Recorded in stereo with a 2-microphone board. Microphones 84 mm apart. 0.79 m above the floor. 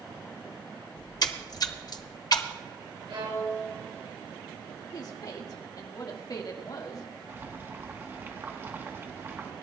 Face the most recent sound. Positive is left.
turn(degrees=-30)  # may be behind; listen again after turning